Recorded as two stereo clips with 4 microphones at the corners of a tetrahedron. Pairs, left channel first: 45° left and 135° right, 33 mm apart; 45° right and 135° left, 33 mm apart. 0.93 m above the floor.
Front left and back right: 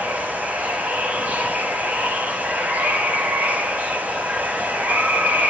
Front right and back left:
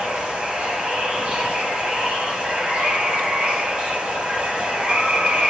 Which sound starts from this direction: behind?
Running water, at 0.0 s.